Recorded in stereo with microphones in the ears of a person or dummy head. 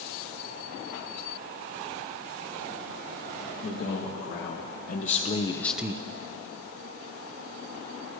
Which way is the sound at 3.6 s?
50° left (ahead or behind).